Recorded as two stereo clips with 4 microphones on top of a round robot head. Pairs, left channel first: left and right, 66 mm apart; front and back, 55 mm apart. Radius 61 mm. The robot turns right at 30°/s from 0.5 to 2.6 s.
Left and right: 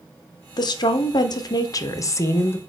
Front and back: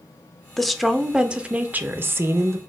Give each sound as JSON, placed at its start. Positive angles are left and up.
{"t": 0.6, "sound": "a woman speaking", "azimuth_deg": 85, "distance_m": 0.7}